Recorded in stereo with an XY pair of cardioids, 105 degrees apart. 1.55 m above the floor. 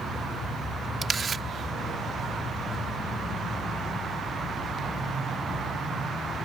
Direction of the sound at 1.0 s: 35° right.